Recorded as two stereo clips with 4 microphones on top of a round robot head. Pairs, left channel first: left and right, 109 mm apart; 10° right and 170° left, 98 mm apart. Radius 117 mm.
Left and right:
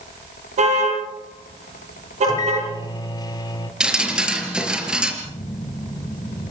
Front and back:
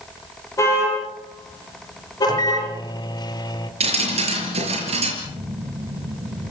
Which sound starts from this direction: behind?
Dripping, at 3.8 s.